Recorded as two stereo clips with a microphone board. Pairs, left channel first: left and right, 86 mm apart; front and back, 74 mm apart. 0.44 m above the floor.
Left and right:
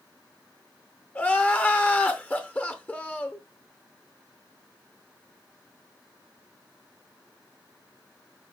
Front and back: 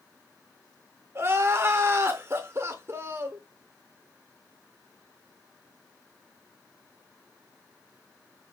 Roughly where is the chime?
No chime in this recording.